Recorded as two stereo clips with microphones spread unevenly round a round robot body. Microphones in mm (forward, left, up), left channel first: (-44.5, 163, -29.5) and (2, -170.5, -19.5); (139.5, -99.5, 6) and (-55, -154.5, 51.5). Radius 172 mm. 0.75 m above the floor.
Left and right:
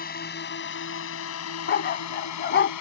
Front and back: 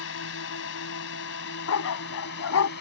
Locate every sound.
0.0 s a drone: 35° left; by 2.8 s 60° left
1.7 s a dog barking: 40° left